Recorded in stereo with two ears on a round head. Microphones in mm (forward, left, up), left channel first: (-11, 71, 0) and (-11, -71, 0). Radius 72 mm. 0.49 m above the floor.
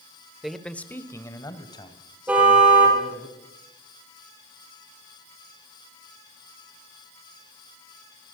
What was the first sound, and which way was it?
A man speaking, centre (ahead or behind).